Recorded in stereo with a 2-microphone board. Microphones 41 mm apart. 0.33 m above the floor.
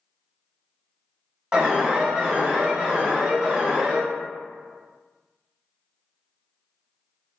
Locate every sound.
1.5 s an alarm: 20° right (ahead or behind), 1.2 m